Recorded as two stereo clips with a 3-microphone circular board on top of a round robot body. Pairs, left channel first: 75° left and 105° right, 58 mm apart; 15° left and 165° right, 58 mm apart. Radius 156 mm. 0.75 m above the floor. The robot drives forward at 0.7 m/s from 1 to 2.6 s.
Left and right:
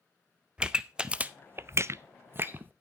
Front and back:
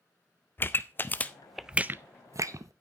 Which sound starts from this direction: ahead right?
A pop, at 0.6 s.